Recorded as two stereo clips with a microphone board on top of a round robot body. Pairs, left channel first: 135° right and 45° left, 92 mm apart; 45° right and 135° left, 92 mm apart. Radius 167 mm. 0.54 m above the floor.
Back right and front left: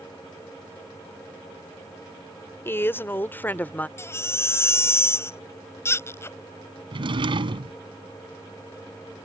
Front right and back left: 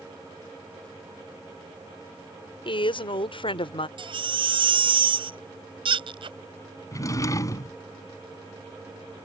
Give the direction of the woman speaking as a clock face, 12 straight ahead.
2 o'clock.